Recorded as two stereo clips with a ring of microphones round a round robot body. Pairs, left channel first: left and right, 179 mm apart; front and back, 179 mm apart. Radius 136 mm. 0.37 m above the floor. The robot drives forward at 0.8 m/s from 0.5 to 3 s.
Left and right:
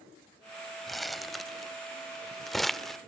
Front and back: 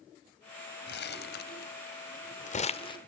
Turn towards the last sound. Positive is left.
turn(degrees=5)